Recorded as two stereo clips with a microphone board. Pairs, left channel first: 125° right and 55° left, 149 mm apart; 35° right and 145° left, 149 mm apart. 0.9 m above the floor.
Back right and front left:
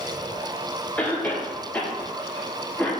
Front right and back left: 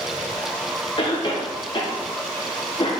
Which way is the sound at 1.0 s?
55° right.